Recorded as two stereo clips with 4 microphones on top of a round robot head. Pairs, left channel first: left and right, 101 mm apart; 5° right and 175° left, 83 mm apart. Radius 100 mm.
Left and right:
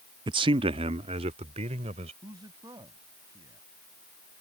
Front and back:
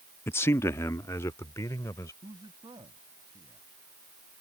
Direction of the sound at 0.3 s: 60° right.